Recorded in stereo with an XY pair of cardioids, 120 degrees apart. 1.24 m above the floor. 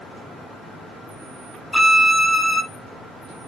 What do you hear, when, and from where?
1.7 s a violin: straight ahead, 1.2 m